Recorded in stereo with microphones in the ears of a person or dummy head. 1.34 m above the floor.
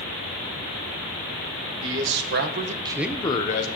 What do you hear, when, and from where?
1.8 s a man speaking: 70° right (ahead or behind), 1.8 m; by 3.7 s 45° left (ahead or behind), 1.1 m